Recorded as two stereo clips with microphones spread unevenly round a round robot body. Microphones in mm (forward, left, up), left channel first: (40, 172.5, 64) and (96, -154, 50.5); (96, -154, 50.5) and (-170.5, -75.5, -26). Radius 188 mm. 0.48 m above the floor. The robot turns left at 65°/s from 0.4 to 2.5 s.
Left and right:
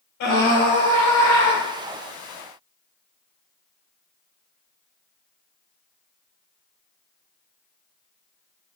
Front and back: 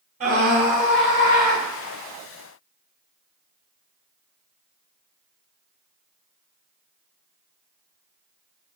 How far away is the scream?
About 2.5 m.